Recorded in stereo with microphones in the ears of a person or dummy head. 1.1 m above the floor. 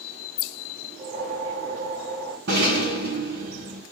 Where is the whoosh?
50° right (ahead or behind), 3 m.